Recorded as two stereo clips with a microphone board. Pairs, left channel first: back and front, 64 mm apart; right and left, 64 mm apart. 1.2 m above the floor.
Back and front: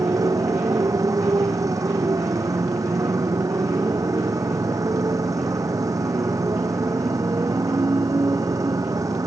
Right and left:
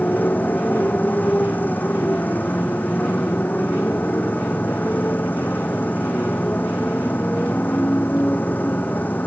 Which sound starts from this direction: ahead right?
A motorcycle, at 0.0 s.